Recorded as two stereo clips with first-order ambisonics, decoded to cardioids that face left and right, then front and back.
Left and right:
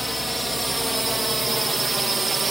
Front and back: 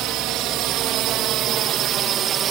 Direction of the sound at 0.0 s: Straight behind.